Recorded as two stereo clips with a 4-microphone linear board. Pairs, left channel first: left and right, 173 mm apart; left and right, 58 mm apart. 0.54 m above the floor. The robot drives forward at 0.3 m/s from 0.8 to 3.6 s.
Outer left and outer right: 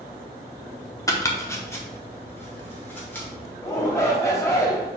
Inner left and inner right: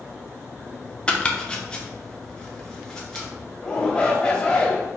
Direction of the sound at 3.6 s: 15° left (ahead or behind).